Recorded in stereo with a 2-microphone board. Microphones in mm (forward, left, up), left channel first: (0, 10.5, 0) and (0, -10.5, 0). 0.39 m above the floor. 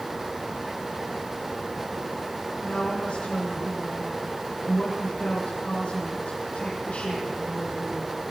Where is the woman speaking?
60° left (ahead or behind), 9.5 m.